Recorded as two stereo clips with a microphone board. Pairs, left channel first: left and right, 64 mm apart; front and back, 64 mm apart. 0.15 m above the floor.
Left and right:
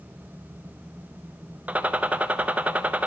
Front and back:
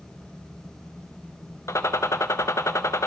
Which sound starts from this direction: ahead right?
A gunshot, at 1.7 s.